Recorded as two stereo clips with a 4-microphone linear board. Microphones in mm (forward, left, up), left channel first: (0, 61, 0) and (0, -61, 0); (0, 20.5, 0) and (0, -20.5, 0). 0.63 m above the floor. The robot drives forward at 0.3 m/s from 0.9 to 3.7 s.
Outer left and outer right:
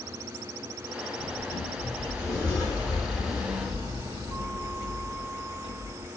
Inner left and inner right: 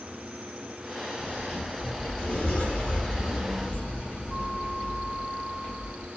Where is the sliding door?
25° left (ahead or behind), 1.6 m; by 6.1 s 30° left (ahead or behind), 1.2 m.